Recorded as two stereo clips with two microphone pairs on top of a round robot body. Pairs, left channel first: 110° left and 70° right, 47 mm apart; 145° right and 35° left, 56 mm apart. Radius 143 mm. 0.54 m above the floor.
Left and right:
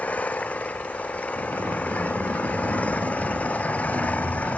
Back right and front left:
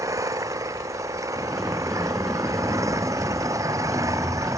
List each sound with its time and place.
0.0 s an engine running: 55° left
1.4 s a sliding door: 55° right